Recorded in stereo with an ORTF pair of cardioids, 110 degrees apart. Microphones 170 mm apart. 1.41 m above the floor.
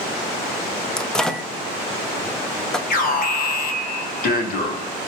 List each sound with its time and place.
1.0 s a microwave: 5° left, 0.5 m
2.9 s an alarm: 60° left, 1.2 m